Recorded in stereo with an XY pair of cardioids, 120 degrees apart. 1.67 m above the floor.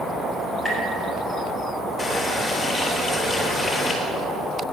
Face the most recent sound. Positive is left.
turn(degrees=20)